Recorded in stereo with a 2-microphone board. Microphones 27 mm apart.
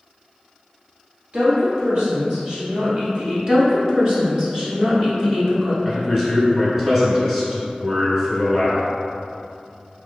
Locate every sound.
1.3 s a woman speaking: 50° right (ahead or behind), 1.5 m
3.5 s a woman speaking: 30° right (ahead or behind), 1.3 m
5.8 s a man speaking: 15° right (ahead or behind), 1.3 m